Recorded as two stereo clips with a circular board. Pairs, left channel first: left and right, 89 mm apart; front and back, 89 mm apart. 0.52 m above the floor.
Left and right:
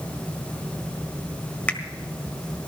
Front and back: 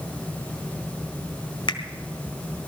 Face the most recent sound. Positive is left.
turn(degrees=15)